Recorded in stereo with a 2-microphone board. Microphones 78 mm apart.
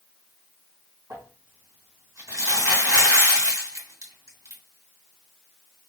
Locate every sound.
1.1 s crumpling: 45° right (ahead or behind), 2.5 m